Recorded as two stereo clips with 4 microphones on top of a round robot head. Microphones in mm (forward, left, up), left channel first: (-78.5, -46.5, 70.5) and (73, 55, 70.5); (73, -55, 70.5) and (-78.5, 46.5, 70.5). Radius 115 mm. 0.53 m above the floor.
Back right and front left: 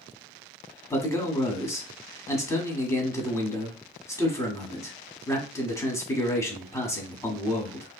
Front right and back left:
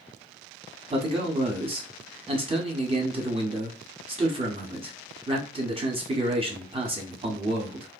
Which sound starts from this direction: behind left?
A man speaking, at 0.9 s.